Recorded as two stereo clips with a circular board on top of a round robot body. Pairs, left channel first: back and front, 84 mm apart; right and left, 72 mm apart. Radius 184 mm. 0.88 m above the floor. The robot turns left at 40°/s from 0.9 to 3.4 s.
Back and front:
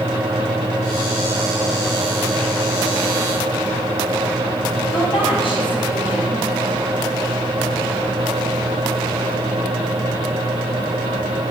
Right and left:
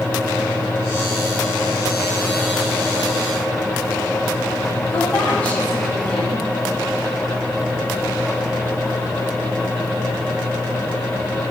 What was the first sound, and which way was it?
A woman speaking, 160° right.